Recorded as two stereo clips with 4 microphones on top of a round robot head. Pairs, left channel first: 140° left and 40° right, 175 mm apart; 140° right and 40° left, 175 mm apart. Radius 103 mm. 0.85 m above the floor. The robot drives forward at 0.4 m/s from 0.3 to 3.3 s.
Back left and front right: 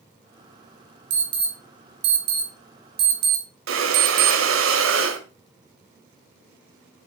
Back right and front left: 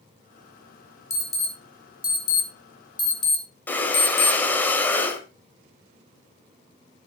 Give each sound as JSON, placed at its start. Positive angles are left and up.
{"t": 1.1, "sound": "an alarm", "azimuth_deg": -60, "distance_m": 4.5}
{"t": 3.7, "sound": "breathing", "azimuth_deg": -60, "distance_m": 1.2}